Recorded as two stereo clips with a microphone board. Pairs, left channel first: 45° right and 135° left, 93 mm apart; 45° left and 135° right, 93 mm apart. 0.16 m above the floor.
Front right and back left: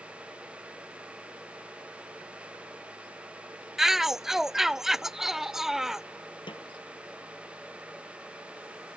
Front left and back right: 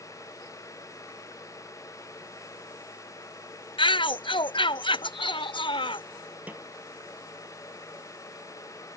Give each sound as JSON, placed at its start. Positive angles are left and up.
{"t": 3.8, "sound": "a shout", "azimuth_deg": 50}
{"t": 6.5, "sound": "a snare drum", "azimuth_deg": -65}